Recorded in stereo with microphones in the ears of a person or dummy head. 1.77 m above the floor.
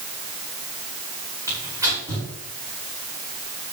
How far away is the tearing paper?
About 5.5 m.